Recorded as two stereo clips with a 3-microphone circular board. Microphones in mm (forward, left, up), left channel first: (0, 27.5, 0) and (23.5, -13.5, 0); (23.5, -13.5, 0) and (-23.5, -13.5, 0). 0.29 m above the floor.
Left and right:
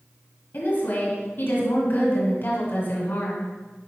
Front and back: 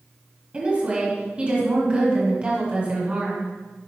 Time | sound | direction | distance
0.5 | a woman speaking | 125° left | 2 m